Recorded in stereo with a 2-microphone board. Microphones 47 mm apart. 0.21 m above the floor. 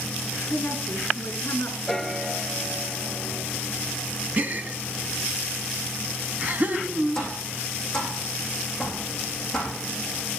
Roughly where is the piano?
Centre.